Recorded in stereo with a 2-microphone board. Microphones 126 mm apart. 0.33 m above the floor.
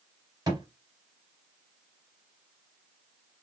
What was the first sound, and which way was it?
A thud, 35° right (ahead or behind).